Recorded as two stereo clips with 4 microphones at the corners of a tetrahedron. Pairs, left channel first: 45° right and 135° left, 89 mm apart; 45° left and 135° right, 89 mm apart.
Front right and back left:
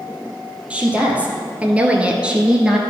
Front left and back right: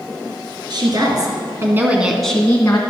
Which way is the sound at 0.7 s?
150° right.